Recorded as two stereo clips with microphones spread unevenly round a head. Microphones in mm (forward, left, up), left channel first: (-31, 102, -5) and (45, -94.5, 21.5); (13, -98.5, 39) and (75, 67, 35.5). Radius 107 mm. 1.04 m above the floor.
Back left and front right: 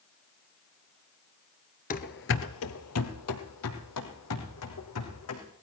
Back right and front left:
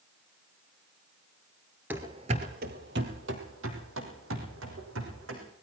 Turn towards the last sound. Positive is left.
turn(degrees=95)